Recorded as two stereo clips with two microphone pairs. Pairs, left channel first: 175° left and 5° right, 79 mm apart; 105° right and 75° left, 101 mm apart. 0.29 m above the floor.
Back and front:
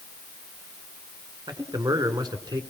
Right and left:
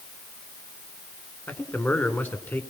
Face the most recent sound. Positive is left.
turn(degrees=-35)